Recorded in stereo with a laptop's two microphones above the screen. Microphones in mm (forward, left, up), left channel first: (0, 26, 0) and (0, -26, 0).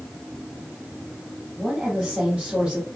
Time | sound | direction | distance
1.6 | a woman speaking | 5° right (ahead or behind) | 1.8 m